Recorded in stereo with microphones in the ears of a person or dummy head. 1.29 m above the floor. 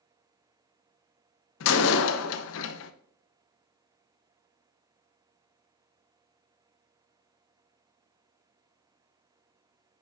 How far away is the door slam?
About 0.8 m.